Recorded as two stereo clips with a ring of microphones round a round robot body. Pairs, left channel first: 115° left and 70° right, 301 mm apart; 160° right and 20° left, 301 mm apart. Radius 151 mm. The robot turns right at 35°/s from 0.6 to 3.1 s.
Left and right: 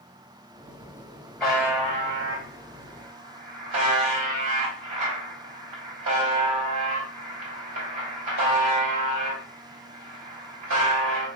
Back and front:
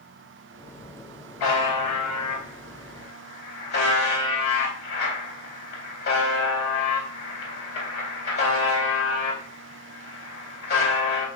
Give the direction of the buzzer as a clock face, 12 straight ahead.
5 o'clock.